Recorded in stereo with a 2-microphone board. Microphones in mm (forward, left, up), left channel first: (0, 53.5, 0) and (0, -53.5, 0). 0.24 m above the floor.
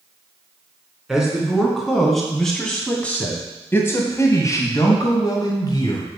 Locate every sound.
1.1 s a man speaking: 5° right (ahead or behind), 3 m; by 6.1 s 40° left (ahead or behind), 2 m